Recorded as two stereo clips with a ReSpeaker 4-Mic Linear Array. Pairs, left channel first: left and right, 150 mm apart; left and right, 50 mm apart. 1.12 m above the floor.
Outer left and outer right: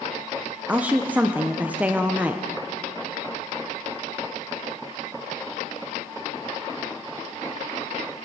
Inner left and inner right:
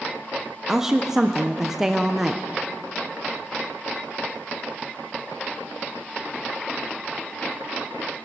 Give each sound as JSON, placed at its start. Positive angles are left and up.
{"t": 0.7, "sound": "a woman speaking", "side_deg": -10, "distance_m": 0.6}